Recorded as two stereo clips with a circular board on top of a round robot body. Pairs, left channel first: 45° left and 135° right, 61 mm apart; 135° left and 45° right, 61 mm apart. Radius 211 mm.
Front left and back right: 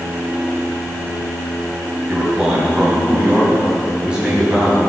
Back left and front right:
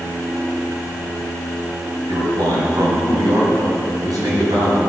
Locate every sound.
2.1 s a man speaking: 60° right, 4.5 m